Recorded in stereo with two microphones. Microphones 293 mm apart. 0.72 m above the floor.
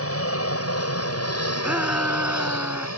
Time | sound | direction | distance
0.0 | an aircraft | 50° left (ahead or behind) | ?
1.6 | a shout | 5° right (ahead or behind) | ?